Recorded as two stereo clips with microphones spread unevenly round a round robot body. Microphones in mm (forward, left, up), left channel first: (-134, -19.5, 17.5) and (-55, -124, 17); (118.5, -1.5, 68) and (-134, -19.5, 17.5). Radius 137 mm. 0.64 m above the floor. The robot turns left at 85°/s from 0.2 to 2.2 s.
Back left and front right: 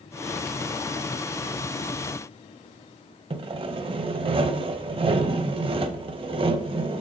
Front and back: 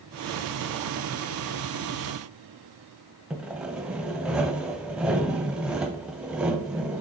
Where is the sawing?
80° right, 0.5 m.